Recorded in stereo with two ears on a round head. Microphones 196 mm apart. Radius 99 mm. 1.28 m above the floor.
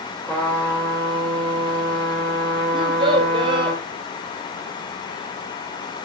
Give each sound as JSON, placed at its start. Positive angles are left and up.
{"t": 0.3, "sound": "a trumpet", "side_deg": 10, "distance_m": 2.5}
{"t": 2.7, "sound": "a child speaking", "side_deg": -25, "distance_m": 1.4}